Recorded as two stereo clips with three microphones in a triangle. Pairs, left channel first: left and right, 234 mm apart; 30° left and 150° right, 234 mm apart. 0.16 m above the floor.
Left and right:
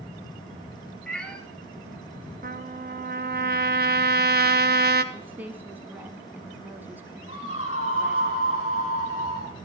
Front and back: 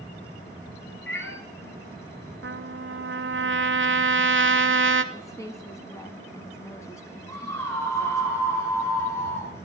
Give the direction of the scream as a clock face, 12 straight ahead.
9 o'clock.